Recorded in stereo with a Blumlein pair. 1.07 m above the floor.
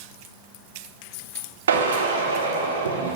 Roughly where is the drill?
Ahead right.